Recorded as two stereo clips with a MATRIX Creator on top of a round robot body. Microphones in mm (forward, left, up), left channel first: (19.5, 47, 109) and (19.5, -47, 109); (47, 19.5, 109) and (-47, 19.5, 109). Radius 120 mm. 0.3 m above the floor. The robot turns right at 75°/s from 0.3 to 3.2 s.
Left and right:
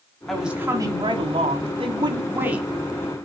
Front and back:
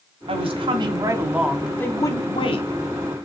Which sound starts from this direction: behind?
A woman speaking, at 0.3 s.